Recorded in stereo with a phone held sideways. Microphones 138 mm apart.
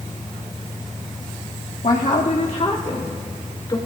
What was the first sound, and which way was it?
A woman speaking, 70° left (ahead or behind).